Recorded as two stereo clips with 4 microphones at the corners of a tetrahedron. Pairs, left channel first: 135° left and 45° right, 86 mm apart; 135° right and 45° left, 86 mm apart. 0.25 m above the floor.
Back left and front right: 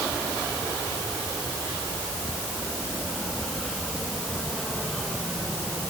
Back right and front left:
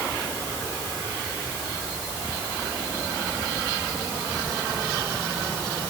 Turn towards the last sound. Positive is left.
No sound to turn to.